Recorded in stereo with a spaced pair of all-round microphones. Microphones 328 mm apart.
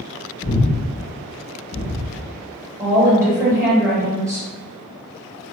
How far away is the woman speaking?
About 1.6 m.